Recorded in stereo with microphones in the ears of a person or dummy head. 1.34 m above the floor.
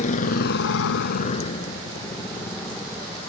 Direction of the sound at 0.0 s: 40° left (ahead or behind).